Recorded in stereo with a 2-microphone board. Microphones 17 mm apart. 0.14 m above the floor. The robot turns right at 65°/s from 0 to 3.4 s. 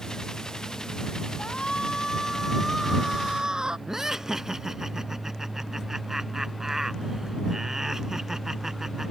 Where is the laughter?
30° right (ahead or behind).